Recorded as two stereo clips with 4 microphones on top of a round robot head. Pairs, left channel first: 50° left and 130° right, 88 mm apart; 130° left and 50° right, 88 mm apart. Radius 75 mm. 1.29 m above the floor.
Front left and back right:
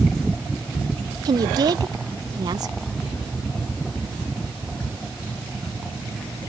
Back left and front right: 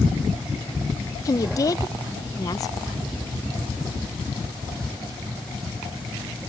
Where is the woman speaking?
175° right.